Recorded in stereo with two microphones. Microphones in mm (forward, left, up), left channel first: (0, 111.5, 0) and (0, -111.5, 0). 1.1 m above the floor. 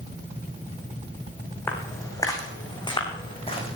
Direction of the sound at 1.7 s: 10° left (ahead or behind).